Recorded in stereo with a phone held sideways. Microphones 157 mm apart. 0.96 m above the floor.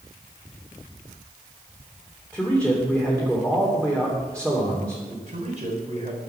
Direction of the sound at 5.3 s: 45° right (ahead or behind).